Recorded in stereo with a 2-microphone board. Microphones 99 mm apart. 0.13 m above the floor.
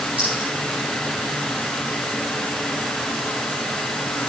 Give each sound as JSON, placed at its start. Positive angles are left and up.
{"t": 0.2, "sound": "a clink", "side_deg": -70, "distance_m": 8.0}